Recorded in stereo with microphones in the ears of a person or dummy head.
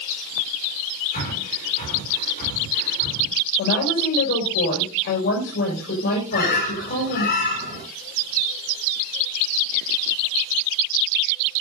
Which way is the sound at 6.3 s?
55° left (ahead or behind).